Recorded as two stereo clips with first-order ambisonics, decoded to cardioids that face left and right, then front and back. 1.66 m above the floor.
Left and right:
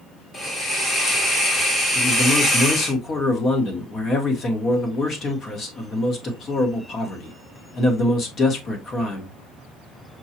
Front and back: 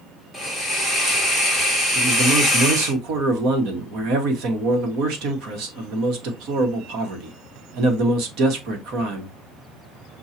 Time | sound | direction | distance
0.3 | a hiss | 115° left | 1.1 m
1.9 | a man speaking | 155° left | 1.1 m